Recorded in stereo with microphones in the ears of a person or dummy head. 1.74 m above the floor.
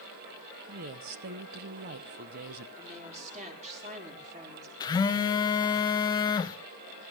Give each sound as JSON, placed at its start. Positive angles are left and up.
{"t": 0.7, "sound": "a woman speaking", "side_deg": -40, "distance_m": 0.8}
{"t": 2.8, "sound": "a woman speaking", "side_deg": -40, "distance_m": 5.0}
{"t": 4.8, "sound": "a phone buzzing", "side_deg": 25, "distance_m": 1.0}